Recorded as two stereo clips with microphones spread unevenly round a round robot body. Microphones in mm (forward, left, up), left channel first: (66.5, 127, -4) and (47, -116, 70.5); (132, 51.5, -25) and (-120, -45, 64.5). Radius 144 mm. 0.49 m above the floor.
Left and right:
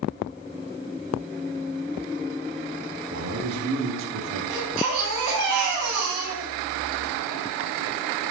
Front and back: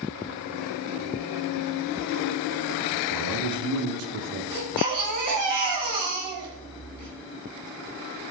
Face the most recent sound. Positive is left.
turn(degrees=-80)